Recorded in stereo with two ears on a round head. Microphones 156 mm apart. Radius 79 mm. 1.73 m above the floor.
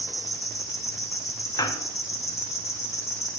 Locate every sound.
0.0 s an insect: 20° left (ahead or behind), 1.9 m
1.6 s a squeak: 20° left (ahead or behind), 0.7 m